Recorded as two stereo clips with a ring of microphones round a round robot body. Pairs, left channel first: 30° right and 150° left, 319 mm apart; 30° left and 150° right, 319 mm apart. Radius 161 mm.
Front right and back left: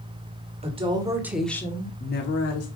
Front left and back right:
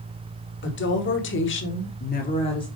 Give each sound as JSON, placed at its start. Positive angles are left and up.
{"t": 0.6, "sound": "a woman speaking", "azimuth_deg": 80, "distance_m": 1.9}